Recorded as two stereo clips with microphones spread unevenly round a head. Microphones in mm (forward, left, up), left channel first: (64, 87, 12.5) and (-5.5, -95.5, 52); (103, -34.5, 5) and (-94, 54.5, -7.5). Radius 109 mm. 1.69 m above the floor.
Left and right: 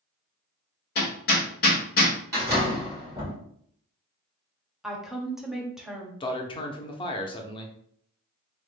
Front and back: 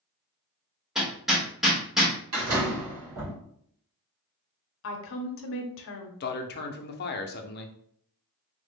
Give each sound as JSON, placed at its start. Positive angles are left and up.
{"t": 0.9, "sound": "hammering", "azimuth_deg": 65, "distance_m": 1.0}
{"t": 2.3, "sound": "a door slam", "azimuth_deg": 180, "distance_m": 2.0}
{"t": 4.8, "sound": "a woman speaking", "azimuth_deg": -30, "distance_m": 0.6}
{"t": 6.2, "sound": "a man speaking", "azimuth_deg": 0, "distance_m": 0.5}